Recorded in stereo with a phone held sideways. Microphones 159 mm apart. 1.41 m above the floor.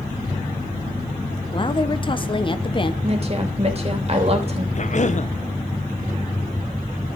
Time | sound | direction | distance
1.5 | a woman speaking | 35° left (ahead or behind) | 1.0 m
3.0 | a woman speaking | 40° right (ahead or behind) | 3 m
4.8 | a cough | 50° left (ahead or behind) | 1.2 m